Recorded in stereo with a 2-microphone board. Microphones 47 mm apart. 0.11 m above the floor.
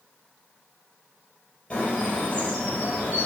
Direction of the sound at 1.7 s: 25° left (ahead or behind).